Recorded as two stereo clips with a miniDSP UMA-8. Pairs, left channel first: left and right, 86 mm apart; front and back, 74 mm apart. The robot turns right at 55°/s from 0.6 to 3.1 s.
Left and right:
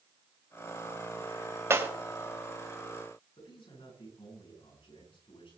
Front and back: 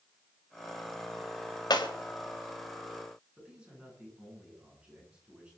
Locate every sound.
1.7 s breaking glass: 30° right, 2 m; by 1.9 s 20° right, 2 m
3.4 s a man speaking: 105° left, 10 m